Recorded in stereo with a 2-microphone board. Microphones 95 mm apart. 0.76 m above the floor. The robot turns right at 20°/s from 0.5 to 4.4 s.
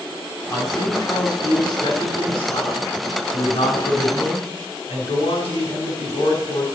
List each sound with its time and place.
0.5 s a man speaking: 25° left, 6 m; by 6.7 s 105° left, 6 m